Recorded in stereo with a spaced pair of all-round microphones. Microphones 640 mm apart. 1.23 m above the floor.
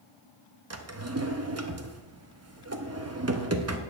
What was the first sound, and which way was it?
A drawer, 25° right (ahead or behind).